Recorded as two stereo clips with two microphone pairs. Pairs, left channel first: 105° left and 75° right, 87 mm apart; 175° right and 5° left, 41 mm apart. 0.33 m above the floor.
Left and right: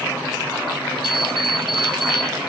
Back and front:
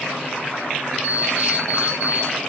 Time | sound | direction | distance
1.0 | an alarm clock | 130° left | 4.5 m